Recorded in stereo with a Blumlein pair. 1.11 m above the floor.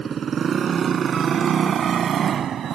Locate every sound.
0.0 s a motorcycle: 20° right; by 2.8 s 25° right